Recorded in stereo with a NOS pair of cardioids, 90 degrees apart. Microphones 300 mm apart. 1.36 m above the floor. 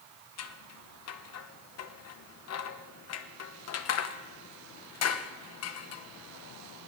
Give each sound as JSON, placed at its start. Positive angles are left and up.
{"t": 0.4, "sound": "scissors", "azimuth_deg": 55, "distance_m": 1.0}